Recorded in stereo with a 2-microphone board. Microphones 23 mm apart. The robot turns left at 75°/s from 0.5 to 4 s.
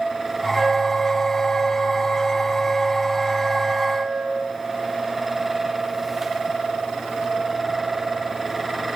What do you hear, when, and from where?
0.5 s a flute: 160° left, 1.5 m; by 4.5 s 100° right, 1.5 m